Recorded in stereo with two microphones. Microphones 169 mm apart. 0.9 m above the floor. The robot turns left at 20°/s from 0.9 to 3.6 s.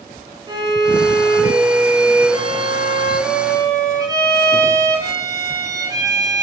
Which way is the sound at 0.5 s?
25° right (ahead or behind).